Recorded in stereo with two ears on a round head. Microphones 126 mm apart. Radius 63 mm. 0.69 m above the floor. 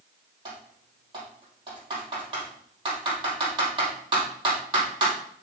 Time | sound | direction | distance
0.5 | typing on a keyboard | 35° right (ahead or behind) | 4 m